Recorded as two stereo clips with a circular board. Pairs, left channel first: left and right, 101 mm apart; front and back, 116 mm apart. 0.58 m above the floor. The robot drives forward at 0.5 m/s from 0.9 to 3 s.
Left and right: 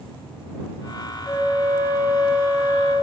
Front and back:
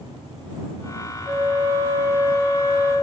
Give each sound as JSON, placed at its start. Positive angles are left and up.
{"t": 1.2, "sound": "a flute", "azimuth_deg": 145, "distance_m": 4.0}